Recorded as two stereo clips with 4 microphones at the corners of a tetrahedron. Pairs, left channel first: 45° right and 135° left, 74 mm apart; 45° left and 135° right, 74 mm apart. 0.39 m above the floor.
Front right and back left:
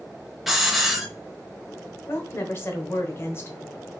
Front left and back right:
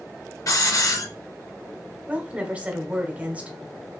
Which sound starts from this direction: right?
A woman speaking, at 2.1 s.